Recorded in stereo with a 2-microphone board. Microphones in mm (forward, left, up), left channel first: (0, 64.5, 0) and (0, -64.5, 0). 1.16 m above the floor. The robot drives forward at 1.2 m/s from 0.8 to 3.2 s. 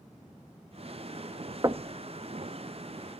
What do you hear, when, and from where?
1.6 s knocking: 30° right (ahead or behind), 0.7 m; by 2.0 s 45° right (ahead or behind), 0.5 m